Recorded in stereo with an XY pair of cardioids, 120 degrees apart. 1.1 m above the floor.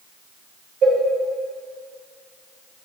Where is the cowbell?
60° right, 1.7 m.